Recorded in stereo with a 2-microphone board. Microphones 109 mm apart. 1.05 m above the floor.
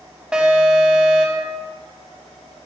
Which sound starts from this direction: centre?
An alarm, at 0.3 s.